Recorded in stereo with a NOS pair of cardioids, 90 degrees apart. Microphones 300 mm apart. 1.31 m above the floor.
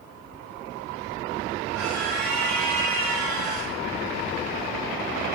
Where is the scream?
65° right, 5.5 m; by 3.7 s 75° right, 4.5 m.